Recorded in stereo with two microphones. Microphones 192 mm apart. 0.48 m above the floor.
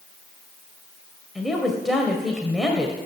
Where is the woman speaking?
Centre (ahead or behind), 2 m.